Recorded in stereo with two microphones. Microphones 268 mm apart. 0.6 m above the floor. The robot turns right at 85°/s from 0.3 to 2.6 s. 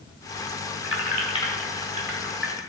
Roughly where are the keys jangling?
Left.